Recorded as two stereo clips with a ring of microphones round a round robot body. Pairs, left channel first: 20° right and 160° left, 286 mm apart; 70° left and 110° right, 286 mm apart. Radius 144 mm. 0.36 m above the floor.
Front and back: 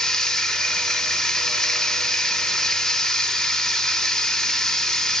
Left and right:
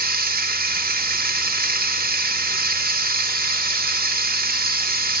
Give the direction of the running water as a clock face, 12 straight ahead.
4 o'clock.